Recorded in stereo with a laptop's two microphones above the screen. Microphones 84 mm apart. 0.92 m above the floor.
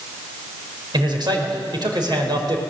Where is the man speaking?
65° right (ahead or behind), 4.5 m.